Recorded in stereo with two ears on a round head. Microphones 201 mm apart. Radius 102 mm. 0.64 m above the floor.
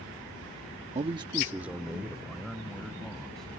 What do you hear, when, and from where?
0.9 s a man speaking: 30° right (ahead or behind); by 3.5 s centre (ahead or behind)